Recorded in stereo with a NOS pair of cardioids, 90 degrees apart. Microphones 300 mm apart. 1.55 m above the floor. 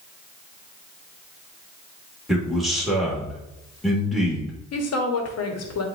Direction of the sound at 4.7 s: 60° left.